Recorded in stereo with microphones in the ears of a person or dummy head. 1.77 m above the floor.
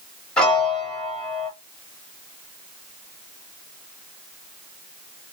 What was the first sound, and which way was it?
A piano, centre (ahead or behind).